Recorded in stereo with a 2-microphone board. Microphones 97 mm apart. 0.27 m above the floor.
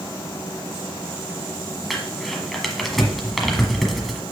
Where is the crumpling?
Centre (ahead or behind), 1.3 m.